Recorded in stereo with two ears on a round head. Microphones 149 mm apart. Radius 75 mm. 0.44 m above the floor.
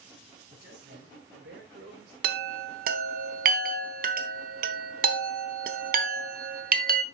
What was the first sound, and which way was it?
A man speaking, 65° right (ahead or behind).